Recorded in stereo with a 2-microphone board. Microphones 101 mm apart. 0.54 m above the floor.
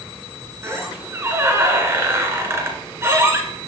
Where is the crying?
No crying in this recording.